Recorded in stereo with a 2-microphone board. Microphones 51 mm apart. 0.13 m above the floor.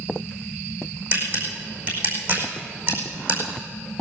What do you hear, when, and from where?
1.1 s a camera shutter: 40° right (ahead or behind), 5 m